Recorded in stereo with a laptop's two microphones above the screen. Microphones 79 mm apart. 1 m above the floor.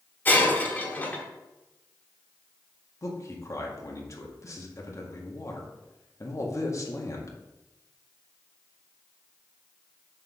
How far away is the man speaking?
About 1.7 m.